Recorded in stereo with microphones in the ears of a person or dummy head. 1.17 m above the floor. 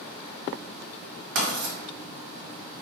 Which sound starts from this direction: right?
Writing, at 1.4 s.